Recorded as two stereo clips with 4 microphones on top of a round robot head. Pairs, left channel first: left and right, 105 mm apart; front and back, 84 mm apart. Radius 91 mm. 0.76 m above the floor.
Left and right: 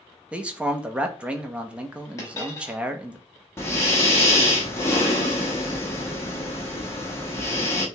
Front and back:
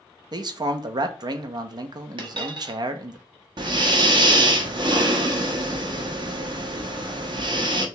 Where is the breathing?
155° left, 0.9 m.